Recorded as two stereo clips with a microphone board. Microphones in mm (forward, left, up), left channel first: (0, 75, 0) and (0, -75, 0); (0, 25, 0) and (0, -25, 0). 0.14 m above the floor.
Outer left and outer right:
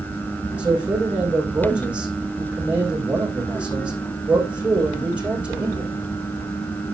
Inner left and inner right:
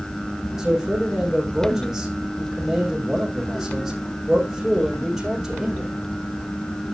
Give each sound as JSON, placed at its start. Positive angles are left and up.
{"t": 0.6, "sound": "a man speaking", "side_deg": -10, "distance_m": 6.5}